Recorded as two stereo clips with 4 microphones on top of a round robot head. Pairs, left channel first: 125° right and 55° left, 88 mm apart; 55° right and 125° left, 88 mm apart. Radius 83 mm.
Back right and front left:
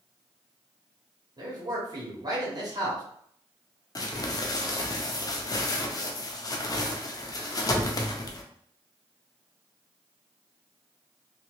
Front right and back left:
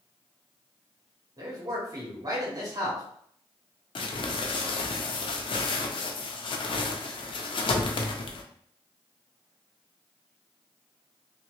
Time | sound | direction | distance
1.4 | a man speaking | 85° left | 1.5 m
4.0 | crumpling | 80° right | 0.6 m